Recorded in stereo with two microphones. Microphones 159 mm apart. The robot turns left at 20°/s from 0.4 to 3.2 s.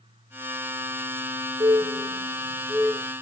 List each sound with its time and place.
1.6 s a bird: 25° right (ahead or behind), 3.5 m; by 3.1 s 5° left (ahead or behind), 3.5 m